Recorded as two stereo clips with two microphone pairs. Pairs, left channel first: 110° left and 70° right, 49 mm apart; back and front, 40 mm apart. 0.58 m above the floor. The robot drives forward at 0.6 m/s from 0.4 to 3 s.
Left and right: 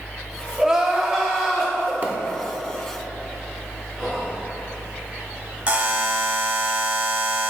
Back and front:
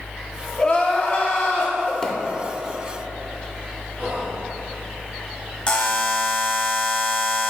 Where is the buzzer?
130° right, 0.8 m.